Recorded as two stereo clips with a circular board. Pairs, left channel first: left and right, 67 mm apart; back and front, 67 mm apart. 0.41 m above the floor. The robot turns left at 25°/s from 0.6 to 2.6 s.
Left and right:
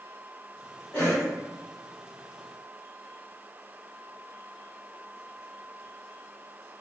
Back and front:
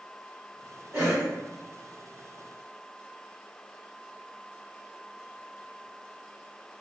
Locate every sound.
0.9 s a cough: 60° left, 0.9 m; by 1.3 s 50° left, 0.9 m